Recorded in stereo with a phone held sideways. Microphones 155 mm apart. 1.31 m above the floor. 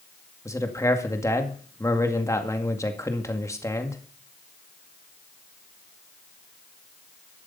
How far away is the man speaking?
About 2 m.